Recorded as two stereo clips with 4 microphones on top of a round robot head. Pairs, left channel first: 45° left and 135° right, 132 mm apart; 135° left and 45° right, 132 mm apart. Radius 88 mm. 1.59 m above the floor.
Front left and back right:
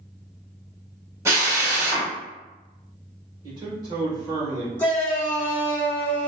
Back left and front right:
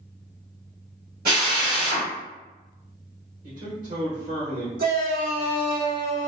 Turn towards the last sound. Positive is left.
turn(degrees=-35)